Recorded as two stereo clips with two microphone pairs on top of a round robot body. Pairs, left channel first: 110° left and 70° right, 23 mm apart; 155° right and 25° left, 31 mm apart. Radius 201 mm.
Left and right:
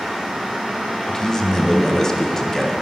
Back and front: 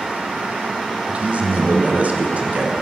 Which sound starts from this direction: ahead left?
A man speaking, at 1.1 s.